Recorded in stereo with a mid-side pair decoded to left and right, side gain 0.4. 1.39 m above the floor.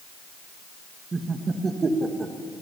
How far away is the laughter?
About 2 m.